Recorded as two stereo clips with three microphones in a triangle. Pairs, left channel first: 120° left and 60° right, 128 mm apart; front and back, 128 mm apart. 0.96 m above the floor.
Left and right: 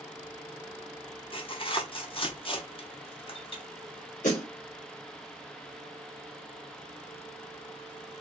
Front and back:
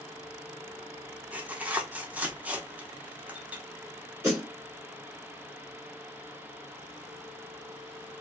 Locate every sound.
1.3 s tearing paper: 105° left, 0.6 m
4.2 s a snare drum: 115° left, 1.8 m